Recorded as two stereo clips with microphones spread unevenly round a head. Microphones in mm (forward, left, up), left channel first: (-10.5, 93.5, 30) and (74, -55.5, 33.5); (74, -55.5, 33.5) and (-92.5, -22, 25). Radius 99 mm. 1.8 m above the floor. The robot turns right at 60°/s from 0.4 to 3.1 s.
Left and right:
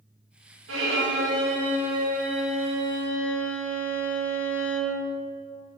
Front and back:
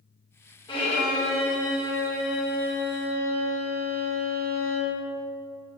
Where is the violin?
75° right, 3 m; by 5.0 s 70° left, 3 m.